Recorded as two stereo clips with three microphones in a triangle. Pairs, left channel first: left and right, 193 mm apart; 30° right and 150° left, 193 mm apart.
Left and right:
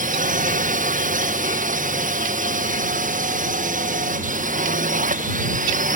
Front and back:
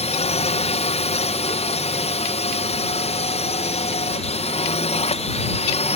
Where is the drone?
70° right.